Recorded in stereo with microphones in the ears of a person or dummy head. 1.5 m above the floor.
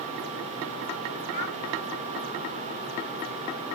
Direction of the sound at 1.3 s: 75° right (ahead or behind).